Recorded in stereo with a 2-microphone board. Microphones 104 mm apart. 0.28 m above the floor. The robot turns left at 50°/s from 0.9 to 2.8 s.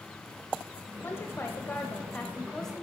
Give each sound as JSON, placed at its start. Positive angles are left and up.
{"t": 1.0, "sound": "a woman speaking", "side_deg": 25, "distance_m": 1.2}